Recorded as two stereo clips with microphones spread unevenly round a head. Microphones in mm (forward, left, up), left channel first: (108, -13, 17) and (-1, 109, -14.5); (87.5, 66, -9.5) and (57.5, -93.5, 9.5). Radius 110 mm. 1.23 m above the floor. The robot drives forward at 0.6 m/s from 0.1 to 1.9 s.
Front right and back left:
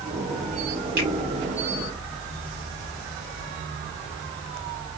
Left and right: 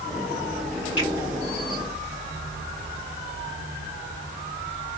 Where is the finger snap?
175° left, 2.5 m.